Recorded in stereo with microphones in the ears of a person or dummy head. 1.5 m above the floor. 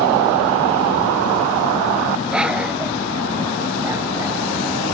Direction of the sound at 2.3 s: Centre (ahead or behind).